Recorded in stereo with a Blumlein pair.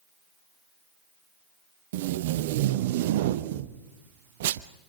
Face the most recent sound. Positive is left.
turn(degrees=-55)